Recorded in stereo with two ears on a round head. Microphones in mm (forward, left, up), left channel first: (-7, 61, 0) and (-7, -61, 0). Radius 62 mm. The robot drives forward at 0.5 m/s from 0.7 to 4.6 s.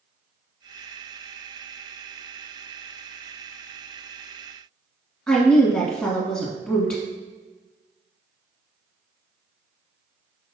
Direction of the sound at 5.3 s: 15° left (ahead or behind).